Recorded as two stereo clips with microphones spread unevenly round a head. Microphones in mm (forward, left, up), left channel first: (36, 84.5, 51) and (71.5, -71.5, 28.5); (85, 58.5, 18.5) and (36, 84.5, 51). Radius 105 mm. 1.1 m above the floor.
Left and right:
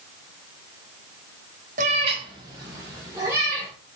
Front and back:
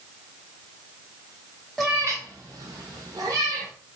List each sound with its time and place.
1.8 s a cat meowing: 135° right, 0.6 m; by 3.7 s 155° right, 2.5 m